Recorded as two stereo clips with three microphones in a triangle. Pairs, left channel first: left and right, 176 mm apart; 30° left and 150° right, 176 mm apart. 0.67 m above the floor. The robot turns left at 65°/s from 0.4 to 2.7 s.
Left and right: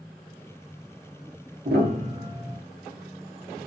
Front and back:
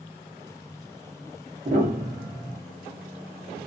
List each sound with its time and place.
1.6 s a piano: 105° right, 0.9 m; by 2.6 s 165° right, 0.9 m